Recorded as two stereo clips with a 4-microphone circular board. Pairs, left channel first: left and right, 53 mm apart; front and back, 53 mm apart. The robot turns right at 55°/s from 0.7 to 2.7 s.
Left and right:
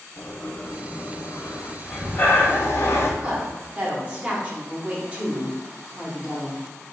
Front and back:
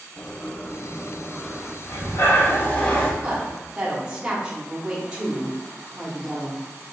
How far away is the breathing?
About 0.6 m.